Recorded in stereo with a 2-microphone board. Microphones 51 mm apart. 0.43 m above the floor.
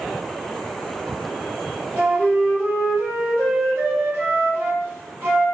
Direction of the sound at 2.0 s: 45° right (ahead or behind).